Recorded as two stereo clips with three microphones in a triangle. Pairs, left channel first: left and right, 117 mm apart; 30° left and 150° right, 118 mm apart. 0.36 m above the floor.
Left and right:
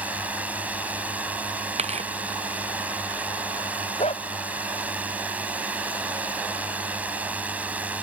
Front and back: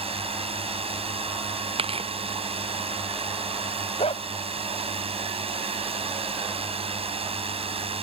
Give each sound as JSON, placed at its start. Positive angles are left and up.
{"t": 0.0, "sound": "a drone", "azimuth_deg": -165}
{"t": 1.8, "sound": "tearing paper", "azimuth_deg": -115}
{"t": 4.0, "sound": "a dog barking", "azimuth_deg": 60}